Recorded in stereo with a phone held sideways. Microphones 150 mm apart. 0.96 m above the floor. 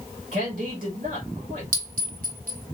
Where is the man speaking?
75° right (ahead or behind), 1.6 m.